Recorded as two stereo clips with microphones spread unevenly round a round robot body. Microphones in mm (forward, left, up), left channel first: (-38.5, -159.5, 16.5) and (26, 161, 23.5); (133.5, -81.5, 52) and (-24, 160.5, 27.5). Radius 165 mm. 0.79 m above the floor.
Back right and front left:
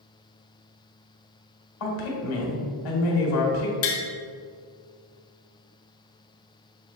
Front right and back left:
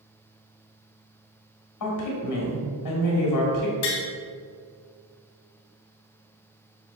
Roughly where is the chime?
No chime in this recording.